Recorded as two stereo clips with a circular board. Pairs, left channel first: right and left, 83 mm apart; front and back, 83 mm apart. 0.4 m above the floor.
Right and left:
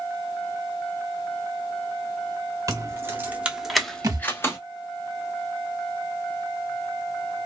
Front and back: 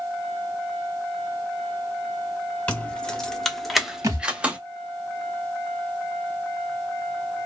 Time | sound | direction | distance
2.7 | keys jangling | 65° left | 0.9 m
4.0 | a thud | 135° left | 0.7 m